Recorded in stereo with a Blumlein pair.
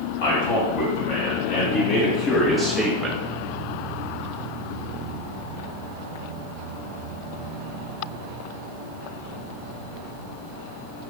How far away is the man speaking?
About 1.7 m.